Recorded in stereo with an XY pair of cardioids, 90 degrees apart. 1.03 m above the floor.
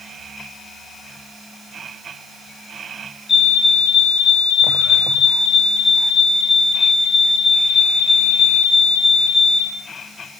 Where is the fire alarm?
45° left, 7.5 m.